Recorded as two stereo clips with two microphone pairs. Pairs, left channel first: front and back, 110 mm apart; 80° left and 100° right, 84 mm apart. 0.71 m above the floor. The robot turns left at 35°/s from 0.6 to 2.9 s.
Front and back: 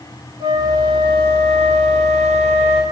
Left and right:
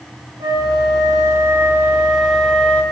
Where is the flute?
125° right, 4 m; by 2.8 s 155° left, 4 m.